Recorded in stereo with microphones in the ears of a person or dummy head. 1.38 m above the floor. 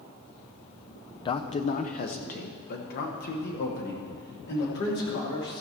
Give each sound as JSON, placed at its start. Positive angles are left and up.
{"t": 1.2, "sound": "a man speaking", "side_deg": 25, "distance_m": 0.5}